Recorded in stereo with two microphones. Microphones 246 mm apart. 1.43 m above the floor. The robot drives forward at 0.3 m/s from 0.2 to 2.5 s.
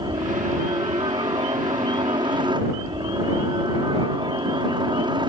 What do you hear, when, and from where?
0.0 s a helicopter: 20° right (ahead or behind)